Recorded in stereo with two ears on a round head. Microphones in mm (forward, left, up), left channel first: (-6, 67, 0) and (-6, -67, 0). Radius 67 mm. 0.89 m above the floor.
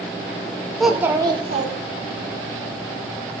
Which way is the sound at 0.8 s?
Centre (ahead or behind).